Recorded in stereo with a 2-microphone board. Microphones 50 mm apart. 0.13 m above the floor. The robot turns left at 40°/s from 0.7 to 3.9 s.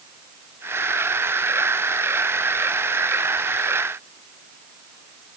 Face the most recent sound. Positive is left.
No sound to turn to.